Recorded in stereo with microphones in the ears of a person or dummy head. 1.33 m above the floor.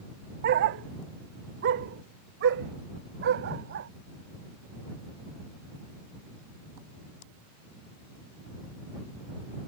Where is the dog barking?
50° right (ahead or behind); by 3.9 s 65° right (ahead or behind).